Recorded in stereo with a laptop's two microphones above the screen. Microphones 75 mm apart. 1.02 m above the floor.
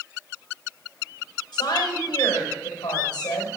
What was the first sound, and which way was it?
A woman speaking, 75° left (ahead or behind).